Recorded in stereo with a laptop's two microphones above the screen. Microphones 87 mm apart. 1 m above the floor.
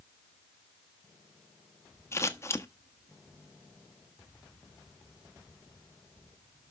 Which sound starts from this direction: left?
Scissors, at 2.1 s.